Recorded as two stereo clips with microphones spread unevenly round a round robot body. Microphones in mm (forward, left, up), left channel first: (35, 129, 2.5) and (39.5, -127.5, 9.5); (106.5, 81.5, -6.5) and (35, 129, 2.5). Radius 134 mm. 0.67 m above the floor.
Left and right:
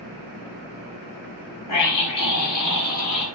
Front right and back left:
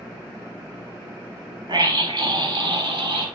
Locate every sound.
1.7 s a scream: 115° left, 5 m; by 3.3 s 125° left, 7 m